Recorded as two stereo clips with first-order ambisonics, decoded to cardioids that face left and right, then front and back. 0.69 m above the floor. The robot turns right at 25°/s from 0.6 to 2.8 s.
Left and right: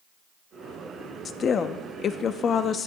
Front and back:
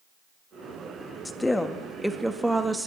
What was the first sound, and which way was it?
A woman speaking, 70° left.